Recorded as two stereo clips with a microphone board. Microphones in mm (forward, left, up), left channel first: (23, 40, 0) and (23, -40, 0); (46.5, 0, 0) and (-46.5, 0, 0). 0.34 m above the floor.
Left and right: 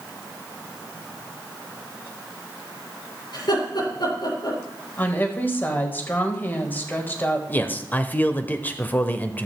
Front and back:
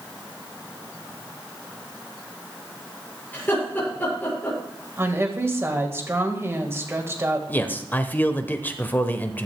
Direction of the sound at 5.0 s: 135° left.